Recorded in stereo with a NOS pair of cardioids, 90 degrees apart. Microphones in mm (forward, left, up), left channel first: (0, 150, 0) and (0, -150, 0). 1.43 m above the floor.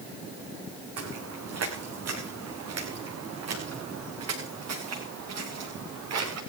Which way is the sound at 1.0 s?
60° right.